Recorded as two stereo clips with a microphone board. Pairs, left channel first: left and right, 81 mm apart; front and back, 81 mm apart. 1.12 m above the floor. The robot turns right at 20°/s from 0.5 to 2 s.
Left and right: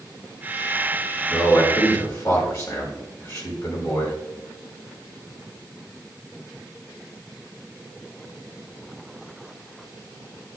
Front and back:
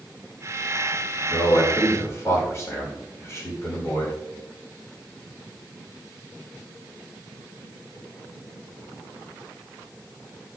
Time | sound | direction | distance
1.3 | a man speaking | 35° left | 5.5 m